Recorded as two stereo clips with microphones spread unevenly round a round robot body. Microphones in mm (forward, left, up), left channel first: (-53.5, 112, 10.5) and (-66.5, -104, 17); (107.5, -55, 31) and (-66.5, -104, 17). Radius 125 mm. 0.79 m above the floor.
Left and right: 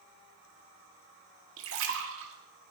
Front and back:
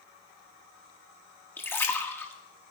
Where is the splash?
65° right, 1.5 m.